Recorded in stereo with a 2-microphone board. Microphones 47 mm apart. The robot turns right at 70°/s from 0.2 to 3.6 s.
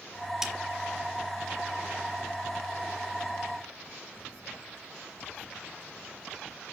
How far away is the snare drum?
About 1.3 m.